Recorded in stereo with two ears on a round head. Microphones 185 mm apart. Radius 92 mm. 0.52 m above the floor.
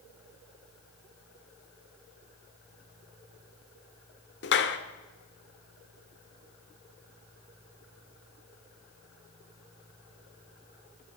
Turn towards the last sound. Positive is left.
turn(degrees=55)  # may be behind; listen again after turning